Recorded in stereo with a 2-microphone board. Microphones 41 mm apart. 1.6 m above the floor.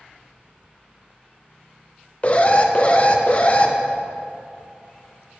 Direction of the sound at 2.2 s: 35° left (ahead or behind).